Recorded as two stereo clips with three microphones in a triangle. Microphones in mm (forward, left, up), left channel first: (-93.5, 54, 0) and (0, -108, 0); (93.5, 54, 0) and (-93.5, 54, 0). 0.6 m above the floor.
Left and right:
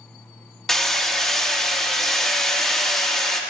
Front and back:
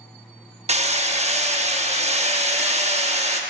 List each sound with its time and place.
0.7 s hammering: 155° right, 0.7 m